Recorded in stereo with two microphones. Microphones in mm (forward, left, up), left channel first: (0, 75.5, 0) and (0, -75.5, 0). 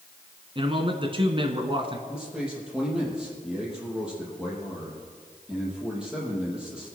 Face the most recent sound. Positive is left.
turn(degrees=-5)  # may be behind; listen again after turning